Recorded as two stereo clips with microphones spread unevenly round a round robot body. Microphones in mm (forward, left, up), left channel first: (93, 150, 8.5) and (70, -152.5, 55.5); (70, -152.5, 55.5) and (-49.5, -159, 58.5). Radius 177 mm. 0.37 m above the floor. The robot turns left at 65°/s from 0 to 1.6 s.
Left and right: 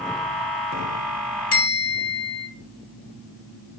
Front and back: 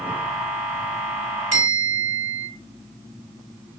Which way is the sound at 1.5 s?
135° left.